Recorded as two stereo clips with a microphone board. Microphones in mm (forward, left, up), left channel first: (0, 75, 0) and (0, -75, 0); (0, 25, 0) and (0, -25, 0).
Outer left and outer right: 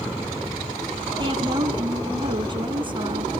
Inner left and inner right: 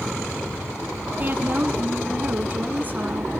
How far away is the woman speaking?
About 2.5 m.